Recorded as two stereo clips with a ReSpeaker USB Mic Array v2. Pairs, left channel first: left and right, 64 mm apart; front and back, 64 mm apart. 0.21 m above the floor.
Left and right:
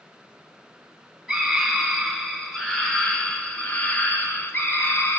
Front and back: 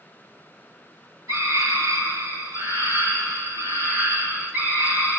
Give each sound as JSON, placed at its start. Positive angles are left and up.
{"t": 1.3, "sound": "a scream", "azimuth_deg": -170, "distance_m": 3.5}